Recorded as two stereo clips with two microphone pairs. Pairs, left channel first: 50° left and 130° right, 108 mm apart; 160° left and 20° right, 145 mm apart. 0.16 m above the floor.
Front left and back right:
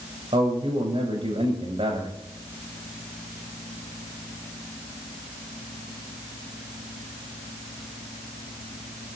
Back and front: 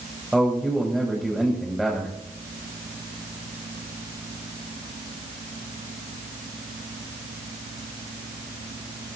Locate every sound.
0.3 s a man speaking: 105° right, 7.5 m